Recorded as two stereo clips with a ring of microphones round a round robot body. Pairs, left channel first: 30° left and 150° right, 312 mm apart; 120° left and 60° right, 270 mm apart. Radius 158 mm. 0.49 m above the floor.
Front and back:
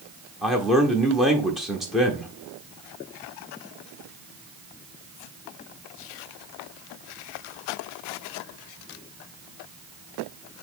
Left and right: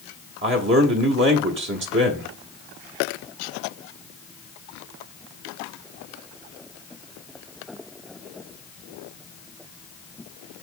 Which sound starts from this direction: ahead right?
A man speaking, at 0.4 s.